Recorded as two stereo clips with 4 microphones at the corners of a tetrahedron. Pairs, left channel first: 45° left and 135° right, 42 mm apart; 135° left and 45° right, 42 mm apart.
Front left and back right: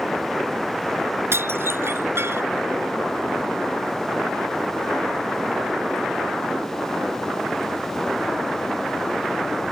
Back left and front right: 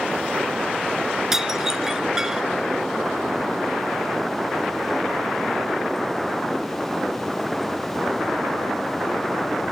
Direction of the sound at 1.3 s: 125° right.